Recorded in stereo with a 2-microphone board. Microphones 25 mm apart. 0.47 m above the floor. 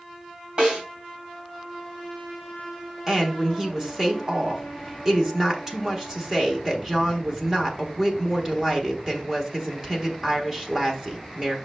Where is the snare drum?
40° right (ahead or behind), 3 m.